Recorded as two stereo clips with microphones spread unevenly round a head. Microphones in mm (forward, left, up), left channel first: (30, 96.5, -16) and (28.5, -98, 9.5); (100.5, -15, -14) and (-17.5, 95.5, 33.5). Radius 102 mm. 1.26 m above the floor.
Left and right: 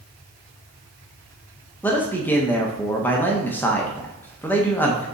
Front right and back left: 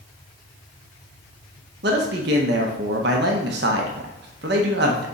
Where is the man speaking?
170° left, 0.8 m.